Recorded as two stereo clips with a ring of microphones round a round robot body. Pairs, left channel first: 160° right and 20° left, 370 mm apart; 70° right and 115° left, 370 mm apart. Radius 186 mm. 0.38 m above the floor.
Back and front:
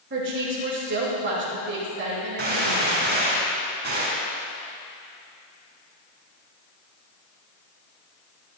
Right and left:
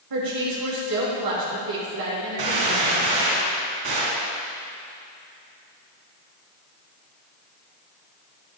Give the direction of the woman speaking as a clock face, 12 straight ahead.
9 o'clock.